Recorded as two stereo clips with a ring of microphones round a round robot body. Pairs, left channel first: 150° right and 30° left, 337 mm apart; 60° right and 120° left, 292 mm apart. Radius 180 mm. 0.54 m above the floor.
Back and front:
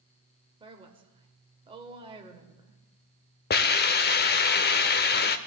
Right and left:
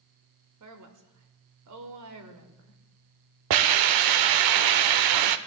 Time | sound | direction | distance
0.6 | a woman speaking | 105° left | 1.9 m
3.5 | a hiss | 145° left | 0.5 m